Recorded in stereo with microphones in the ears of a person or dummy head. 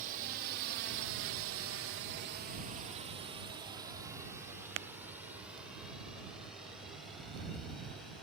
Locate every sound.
0.0 s a drone: 50° right (ahead or behind); by 8.2 s centre (ahead or behind)